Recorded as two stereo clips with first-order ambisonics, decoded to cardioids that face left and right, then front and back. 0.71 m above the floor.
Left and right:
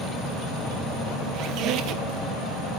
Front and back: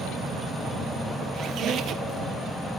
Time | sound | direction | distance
1.3 | a squeak | 130° right | 1.8 m